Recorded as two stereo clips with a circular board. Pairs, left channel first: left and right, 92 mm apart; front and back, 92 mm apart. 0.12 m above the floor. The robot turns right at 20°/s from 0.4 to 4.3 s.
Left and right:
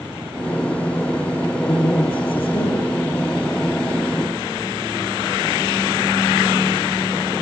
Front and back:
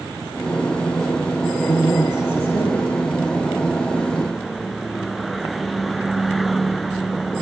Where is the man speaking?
40° left, 8 m; by 2.9 s 70° left, 8 m.